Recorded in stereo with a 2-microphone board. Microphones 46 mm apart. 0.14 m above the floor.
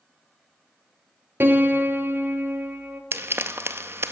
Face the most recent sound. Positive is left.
turn(degrees=-65)  # may be behind; listen again after turning